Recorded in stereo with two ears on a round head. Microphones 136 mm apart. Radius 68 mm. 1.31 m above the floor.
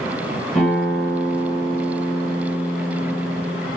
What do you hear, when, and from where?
0.6 s a guitar: 5° left (ahead or behind), 1.0 m